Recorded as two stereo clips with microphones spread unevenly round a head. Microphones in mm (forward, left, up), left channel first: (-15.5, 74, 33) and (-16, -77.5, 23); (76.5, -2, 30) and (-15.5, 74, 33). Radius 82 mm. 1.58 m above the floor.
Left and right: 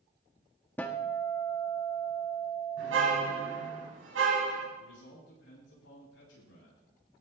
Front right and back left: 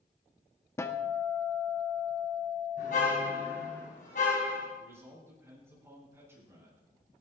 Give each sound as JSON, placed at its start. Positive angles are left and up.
{"t": 0.8, "sound": "a guitar", "azimuth_deg": 20, "distance_m": 1.2}
{"t": 2.8, "sound": "a car horn", "azimuth_deg": -85, "distance_m": 5.0}
{"t": 4.8, "sound": "a man speaking", "azimuth_deg": 70, "distance_m": 9.5}